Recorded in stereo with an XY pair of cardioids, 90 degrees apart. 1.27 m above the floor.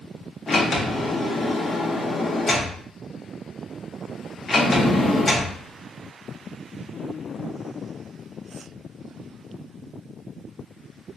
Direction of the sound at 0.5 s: 35° left.